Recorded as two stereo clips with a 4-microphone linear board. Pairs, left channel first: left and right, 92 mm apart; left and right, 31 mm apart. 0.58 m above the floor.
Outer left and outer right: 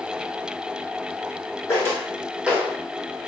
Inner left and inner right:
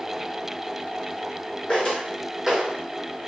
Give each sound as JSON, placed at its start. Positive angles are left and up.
{"t": 1.7, "sound": "footsteps", "side_deg": 30, "distance_m": 1.3}